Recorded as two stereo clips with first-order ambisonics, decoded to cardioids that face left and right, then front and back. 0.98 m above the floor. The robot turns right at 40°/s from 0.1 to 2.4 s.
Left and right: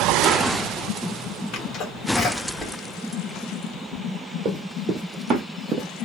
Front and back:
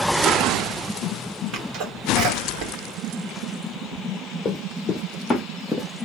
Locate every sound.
1.5 s a sneeze: 130° left, 1.5 m; by 4.0 s 165° left, 1.5 m
4.5 s running footsteps: 60° right, 1.4 m; by 6.0 s 120° right, 1.0 m